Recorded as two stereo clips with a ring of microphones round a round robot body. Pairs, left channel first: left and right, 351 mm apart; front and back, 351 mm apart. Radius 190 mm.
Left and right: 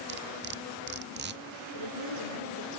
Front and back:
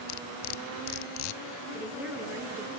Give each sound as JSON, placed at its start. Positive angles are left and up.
{"t": 0.1, "sound": "cutlery clinking", "azimuth_deg": -25, "distance_m": 0.5}
{"t": 1.7, "sound": "a woman speaking", "azimuth_deg": -95, "distance_m": 9.0}